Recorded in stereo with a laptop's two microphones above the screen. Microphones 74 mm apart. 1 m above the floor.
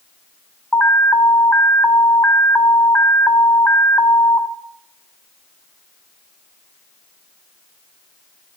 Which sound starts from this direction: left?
An alarm, at 0.7 s.